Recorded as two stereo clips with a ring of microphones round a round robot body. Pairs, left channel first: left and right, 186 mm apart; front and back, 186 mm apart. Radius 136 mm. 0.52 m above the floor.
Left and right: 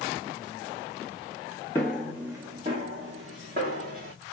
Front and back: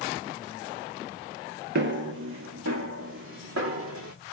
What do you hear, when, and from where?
1.8 s footsteps: 170° left, 0.8 m; by 4.1 s 150° right, 2 m